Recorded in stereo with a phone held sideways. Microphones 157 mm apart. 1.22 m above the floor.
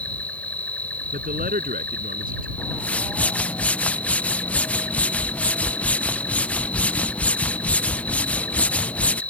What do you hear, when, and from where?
0.0 s an insect: 10° left (ahead or behind)
1.1 s a man speaking: 65° right (ahead or behind)
2.6 s a whoosh: 10° left (ahead or behind)